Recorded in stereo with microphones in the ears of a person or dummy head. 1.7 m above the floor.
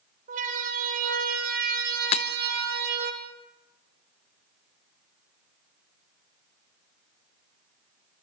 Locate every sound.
0.3 s a siren: 50° right (ahead or behind), 6 m; by 3.1 s 65° right (ahead or behind), 4.5 m
2.1 s breaking glass: 40° left (ahead or behind), 1.1 m